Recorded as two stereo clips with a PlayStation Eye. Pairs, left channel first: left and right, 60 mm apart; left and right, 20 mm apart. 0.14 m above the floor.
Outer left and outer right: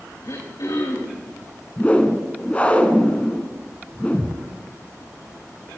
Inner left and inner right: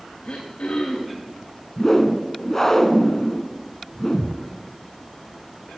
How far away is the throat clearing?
About 6 m.